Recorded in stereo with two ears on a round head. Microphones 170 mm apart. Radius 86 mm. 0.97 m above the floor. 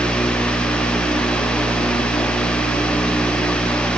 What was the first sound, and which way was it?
Only background noise.